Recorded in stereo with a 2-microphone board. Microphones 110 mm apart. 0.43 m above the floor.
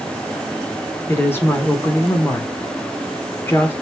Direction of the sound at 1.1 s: 20° left (ahead or behind).